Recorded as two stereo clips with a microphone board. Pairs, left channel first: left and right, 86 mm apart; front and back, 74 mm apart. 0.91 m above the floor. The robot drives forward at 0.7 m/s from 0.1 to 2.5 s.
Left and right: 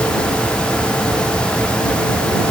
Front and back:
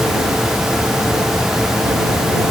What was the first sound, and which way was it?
Only background noise.